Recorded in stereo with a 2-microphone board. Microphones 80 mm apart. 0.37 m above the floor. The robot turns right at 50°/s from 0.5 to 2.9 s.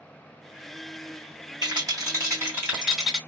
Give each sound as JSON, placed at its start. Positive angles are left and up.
{"t": 1.6, "sound": "a rattle", "azimuth_deg": -75, "distance_m": 2.5}